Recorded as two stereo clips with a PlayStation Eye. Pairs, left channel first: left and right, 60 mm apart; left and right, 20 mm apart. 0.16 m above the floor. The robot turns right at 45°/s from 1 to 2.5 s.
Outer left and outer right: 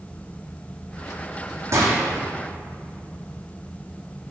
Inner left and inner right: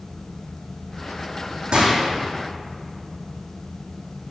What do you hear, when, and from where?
1.7 s a gunshot: 45° right (ahead or behind), 2 m; by 2.0 s 60° right (ahead or behind), 2 m